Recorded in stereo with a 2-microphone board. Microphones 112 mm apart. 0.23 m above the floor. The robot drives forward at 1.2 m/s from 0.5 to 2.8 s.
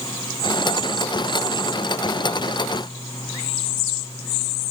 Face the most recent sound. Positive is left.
No sound to turn to.